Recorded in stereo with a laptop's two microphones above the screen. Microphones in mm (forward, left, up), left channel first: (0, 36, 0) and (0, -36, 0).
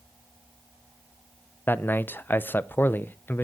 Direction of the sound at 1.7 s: 25° left (ahead or behind).